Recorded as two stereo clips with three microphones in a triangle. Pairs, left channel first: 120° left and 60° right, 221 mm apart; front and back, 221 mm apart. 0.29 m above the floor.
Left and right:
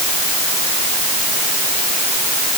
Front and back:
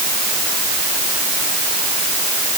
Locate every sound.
Only background noise.